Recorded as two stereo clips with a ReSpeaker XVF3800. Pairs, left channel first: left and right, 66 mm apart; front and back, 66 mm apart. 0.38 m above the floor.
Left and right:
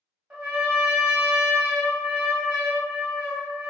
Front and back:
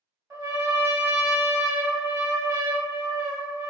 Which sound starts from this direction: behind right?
A trumpet, at 0.3 s.